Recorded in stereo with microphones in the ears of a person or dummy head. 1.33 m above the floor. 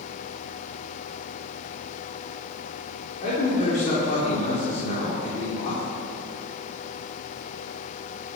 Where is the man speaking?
45° left (ahead or behind), 4 m.